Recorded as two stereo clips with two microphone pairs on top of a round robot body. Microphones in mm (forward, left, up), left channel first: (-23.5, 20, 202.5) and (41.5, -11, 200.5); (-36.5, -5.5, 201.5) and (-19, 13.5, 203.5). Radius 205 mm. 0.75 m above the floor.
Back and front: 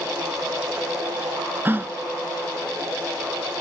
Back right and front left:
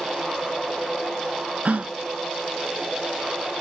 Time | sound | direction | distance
1.6 | a gasp | 30° left | 0.7 m